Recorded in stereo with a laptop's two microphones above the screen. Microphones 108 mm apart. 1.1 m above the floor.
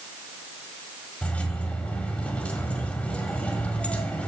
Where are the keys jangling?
10° left (ahead or behind), 1.7 m.